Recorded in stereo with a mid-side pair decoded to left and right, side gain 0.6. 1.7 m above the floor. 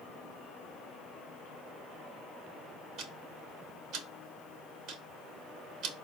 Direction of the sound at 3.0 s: 65° right.